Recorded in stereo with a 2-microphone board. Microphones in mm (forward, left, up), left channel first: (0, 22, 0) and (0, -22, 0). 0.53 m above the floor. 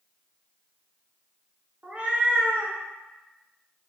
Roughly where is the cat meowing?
Right.